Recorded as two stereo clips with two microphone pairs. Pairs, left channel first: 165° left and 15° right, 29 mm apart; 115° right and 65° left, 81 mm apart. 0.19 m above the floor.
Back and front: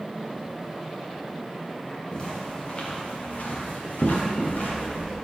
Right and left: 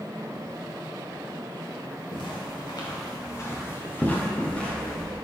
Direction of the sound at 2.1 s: 130° right.